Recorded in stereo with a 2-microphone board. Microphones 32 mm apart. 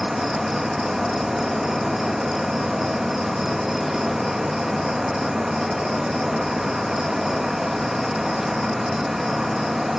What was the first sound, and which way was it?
An insect, 10° right (ahead or behind).